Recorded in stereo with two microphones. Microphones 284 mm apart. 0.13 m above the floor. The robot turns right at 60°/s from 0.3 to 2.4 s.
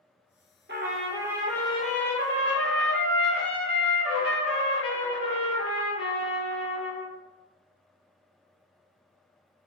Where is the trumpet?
45° right, 0.6 m; by 7.1 s 60° left, 0.6 m.